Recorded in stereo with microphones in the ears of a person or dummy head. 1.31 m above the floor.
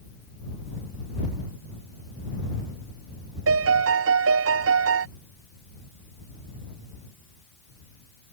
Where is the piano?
70° right (ahead or behind).